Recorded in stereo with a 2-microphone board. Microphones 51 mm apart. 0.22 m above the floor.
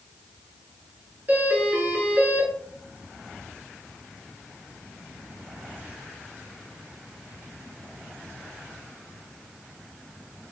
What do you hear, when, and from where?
1.3 s a doorbell: 35° right (ahead or behind), 3.5 m